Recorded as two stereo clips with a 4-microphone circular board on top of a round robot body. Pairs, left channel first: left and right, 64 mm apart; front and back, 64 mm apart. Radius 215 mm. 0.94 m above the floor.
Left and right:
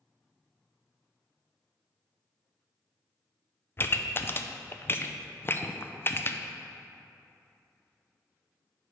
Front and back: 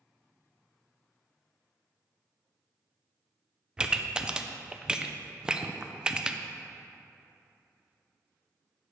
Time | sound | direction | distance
3.8 | a pop | 110° left | 0.7 m